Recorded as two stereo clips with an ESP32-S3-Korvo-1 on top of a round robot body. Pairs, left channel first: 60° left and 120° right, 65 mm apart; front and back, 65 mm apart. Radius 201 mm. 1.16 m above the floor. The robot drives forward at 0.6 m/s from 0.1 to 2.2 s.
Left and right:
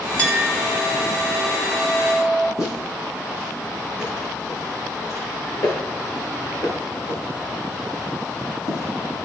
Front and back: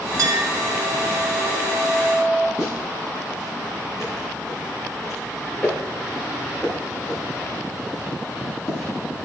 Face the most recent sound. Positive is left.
turn(degrees=75)